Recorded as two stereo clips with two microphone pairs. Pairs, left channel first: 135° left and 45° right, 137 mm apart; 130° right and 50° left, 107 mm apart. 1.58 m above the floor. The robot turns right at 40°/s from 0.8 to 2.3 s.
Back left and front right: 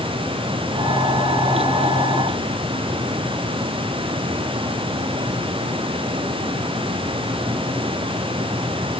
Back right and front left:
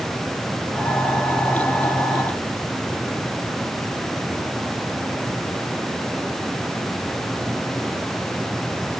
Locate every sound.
Only background noise.